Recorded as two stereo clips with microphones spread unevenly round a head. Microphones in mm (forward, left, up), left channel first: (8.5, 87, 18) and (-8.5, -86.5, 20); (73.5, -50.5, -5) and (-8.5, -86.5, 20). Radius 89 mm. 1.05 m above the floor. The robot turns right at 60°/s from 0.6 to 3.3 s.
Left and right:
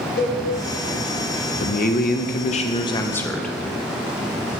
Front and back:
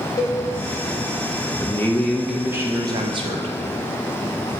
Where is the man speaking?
65° left, 0.6 m; by 3.5 s 165° left, 0.6 m.